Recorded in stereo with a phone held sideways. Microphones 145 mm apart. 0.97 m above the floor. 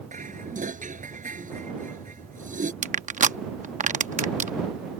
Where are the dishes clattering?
60° right (ahead or behind).